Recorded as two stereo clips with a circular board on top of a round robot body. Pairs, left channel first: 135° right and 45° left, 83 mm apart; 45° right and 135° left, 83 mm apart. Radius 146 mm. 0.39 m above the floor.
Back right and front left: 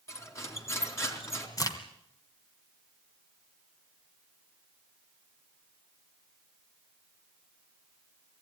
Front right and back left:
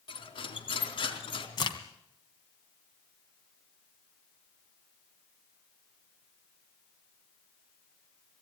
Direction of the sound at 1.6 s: 85° right.